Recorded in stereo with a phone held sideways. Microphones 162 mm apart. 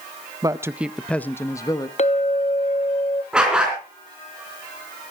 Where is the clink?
45° left (ahead or behind), 0.7 m.